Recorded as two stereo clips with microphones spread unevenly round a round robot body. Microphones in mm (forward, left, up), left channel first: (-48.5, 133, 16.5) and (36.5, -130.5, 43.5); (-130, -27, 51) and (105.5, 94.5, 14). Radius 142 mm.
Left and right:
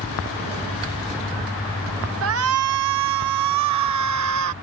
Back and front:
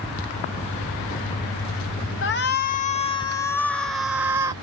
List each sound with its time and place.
2.2 s a shout: 105° right; by 4.5 s 45° right